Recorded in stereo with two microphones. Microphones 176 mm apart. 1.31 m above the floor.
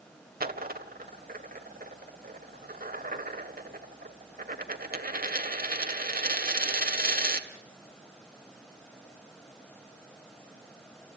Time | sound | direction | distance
0.4 | a dropped coin | 60° right (ahead or behind) | 1.7 m